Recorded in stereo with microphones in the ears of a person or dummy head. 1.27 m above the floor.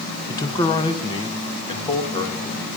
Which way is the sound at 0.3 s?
15° left (ahead or behind).